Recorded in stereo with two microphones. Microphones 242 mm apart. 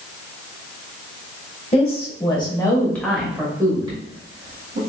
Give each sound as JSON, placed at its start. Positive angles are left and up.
{"t": 1.7, "sound": "a woman speaking", "side_deg": 25, "distance_m": 1.3}